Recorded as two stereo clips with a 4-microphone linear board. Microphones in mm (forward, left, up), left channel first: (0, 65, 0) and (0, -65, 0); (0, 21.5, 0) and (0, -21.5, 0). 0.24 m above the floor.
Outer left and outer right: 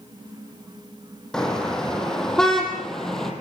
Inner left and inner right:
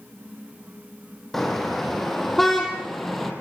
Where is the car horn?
5° left (ahead or behind), 5.5 m.